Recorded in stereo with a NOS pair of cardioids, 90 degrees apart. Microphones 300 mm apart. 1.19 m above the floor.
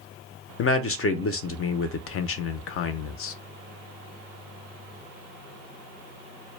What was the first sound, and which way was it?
A man speaking, 50° left.